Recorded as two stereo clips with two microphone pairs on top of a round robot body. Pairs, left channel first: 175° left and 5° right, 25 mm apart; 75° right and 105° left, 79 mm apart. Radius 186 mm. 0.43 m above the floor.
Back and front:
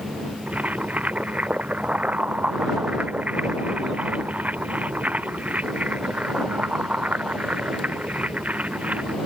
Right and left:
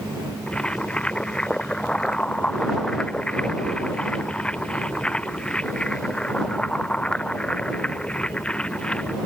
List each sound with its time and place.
0.5 s boiling: straight ahead